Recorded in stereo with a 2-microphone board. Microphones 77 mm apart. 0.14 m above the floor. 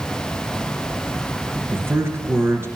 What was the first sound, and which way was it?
A man speaking, 30° right (ahead or behind).